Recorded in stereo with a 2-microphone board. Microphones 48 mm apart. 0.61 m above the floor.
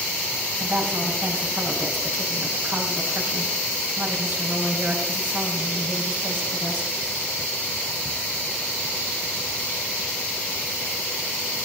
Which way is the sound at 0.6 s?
50° right (ahead or behind).